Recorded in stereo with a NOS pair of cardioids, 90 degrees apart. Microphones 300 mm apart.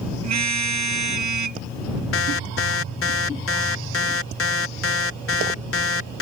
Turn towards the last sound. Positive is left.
turn(degrees=50)